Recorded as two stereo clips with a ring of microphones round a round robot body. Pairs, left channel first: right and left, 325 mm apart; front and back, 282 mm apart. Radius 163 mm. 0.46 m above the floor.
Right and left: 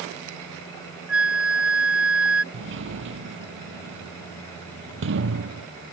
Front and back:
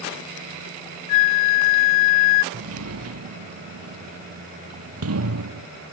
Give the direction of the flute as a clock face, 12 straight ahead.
12 o'clock.